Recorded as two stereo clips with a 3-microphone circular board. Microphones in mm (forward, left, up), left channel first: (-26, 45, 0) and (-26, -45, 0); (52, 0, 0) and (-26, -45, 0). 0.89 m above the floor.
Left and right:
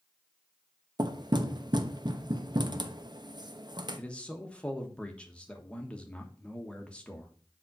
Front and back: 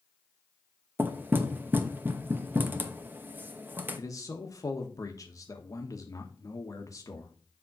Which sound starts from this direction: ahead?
A man speaking, at 4.0 s.